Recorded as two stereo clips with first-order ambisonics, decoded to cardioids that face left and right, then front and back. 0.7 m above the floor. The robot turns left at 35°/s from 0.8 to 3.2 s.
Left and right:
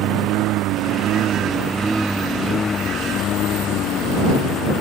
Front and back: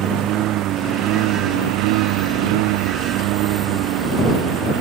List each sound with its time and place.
0.0 s a lawn mower: 135° right; by 4.8 s 145° left